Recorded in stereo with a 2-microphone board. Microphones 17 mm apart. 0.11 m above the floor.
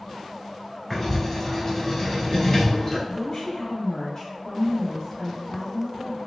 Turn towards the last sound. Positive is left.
turn(degrees=35)  # may be behind; listen again after turning